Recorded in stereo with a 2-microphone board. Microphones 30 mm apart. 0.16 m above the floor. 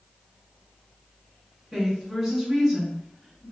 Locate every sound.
1.7 s a woman speaking: 20° right (ahead or behind), 1.8 m